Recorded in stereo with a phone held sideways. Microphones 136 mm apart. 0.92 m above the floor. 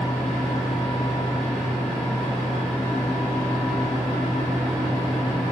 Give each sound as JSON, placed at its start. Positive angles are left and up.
{"t": 0.0, "sound": "a fan", "side_deg": 5, "distance_m": 1.5}